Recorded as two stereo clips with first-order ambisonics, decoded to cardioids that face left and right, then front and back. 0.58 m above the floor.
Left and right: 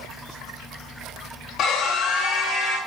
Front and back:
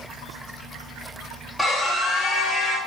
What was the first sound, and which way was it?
A scream, 80° left.